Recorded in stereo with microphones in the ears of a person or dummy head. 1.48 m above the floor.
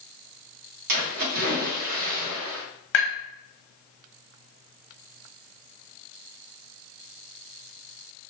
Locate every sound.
0.9 s a splash: 55° right (ahead or behind), 1.5 m
2.9 s tapping: 60° left (ahead or behind), 1.6 m